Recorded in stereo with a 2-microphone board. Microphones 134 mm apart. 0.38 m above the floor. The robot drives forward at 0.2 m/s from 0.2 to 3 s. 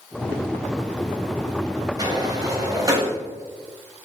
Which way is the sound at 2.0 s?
30° right (ahead or behind).